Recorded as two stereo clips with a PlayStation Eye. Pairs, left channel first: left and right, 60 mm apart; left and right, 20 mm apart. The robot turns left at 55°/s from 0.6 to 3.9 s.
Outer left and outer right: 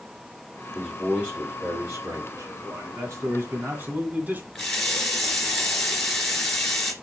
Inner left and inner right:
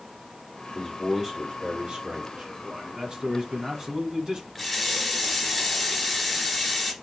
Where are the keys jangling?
I don't hear keys jangling.